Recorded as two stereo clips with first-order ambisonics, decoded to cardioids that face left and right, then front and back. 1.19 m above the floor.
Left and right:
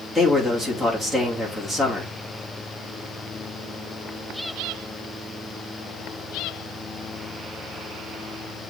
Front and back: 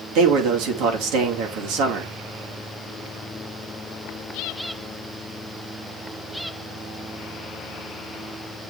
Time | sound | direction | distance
0.1 | a man speaking | 170° right | 2.5 m